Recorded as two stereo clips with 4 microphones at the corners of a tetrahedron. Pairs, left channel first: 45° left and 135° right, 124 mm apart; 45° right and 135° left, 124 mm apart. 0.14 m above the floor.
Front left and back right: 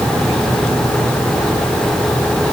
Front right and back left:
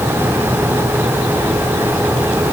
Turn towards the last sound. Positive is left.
No sound to turn to.